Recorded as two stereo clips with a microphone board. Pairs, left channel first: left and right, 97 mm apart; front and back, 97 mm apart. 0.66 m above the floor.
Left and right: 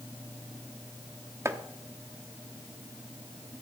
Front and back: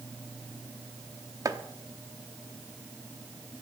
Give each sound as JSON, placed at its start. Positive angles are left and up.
{"t": 1.4, "sound": "chopping", "azimuth_deg": -145, "distance_m": 1.0}